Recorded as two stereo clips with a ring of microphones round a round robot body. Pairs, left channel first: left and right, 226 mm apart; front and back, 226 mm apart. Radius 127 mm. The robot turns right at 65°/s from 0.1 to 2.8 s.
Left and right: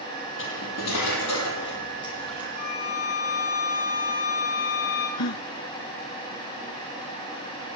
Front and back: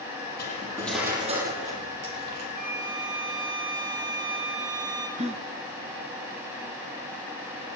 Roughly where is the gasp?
Behind left.